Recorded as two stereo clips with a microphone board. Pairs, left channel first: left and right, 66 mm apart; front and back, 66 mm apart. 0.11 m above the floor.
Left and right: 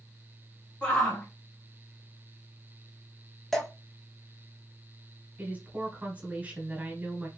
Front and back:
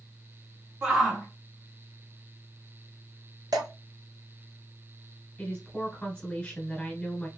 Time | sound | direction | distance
0.8 | a shout | 130° left | 1.1 m
3.5 | dripping | 175° left | 1.0 m
5.4 | a woman speaking | 55° right | 1.5 m